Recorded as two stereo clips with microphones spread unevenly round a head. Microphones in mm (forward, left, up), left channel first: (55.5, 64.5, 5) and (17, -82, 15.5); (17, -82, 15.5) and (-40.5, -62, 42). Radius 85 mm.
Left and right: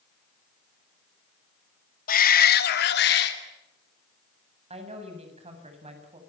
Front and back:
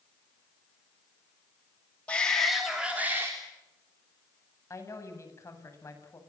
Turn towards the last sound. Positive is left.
turn(degrees=-55)